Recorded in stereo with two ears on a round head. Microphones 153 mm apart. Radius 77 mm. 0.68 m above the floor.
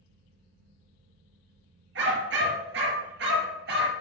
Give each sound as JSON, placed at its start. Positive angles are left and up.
{"t": 1.9, "sound": "a dog barking", "side_deg": -85, "distance_m": 4.0}